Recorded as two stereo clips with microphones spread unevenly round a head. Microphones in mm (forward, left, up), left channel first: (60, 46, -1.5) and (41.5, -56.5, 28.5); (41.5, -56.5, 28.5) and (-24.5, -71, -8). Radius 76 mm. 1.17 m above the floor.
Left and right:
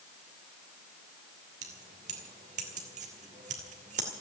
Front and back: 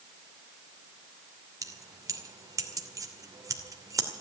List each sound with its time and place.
1.6 s keys jangling: 125° right, 2.5 m